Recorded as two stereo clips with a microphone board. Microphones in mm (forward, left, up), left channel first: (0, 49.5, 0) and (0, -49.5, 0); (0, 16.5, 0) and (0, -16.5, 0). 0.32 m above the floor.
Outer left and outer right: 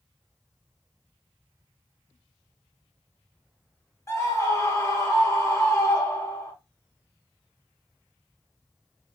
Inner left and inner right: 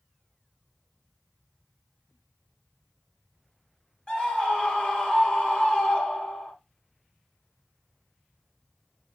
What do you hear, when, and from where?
4.1 s a scream: 30° left (ahead or behind), 1.2 m